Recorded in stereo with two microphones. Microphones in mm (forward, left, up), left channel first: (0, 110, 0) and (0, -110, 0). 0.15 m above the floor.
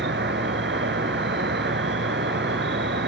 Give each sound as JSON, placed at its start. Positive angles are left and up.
{"t": 0.0, "sound": "an insect", "side_deg": -55, "distance_m": 0.8}